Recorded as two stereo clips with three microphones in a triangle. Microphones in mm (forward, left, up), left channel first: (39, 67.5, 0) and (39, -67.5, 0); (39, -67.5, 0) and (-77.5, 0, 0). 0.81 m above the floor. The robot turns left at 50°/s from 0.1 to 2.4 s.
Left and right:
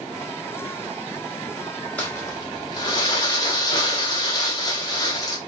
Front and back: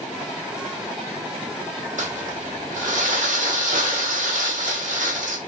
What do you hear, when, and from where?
2.0 s crumpling: 170° left, 1.1 m; by 5.4 s 145° left, 1.1 m